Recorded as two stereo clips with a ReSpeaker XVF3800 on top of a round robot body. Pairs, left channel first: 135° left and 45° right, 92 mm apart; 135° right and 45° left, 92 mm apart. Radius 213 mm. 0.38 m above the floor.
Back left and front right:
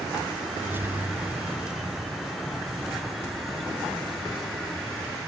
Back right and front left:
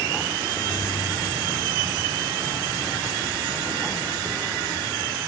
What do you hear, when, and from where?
0.6 s keys jangling: 105° right; by 4.6 s 135° right